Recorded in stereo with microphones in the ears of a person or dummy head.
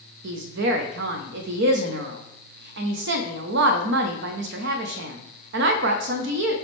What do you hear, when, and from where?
0.2 s a woman speaking: 65° right (ahead or behind), 0.7 m